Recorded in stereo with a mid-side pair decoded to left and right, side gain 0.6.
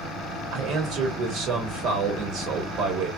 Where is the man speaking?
65° right, 1.7 m.